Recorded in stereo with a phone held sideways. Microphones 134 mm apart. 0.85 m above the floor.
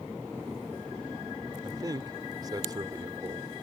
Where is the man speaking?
30° right (ahead or behind).